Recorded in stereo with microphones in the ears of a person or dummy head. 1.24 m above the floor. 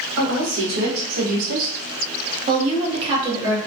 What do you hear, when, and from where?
0.2 s a woman speaking: 65° right (ahead or behind), 1.2 m; by 3.6 s 15° right (ahead or behind), 1.2 m